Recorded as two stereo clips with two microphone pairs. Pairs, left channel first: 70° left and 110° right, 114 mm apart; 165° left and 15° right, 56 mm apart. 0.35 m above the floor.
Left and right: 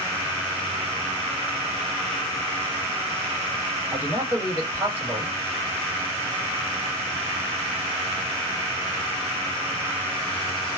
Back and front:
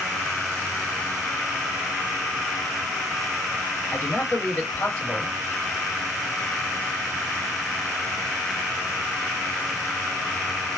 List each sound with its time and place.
3.9 s a man speaking: 170° right, 1.8 m